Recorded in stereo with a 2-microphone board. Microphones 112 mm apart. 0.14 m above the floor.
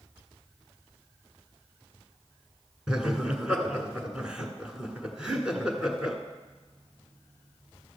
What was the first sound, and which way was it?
Laughter, 10° right (ahead or behind).